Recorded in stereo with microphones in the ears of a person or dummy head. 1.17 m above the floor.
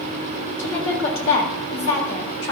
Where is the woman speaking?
70° left (ahead or behind), 3.5 m.